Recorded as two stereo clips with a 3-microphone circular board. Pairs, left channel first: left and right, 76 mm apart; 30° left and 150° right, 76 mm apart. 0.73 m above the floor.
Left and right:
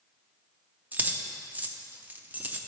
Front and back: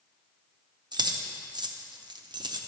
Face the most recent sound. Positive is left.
turn(degrees=-155)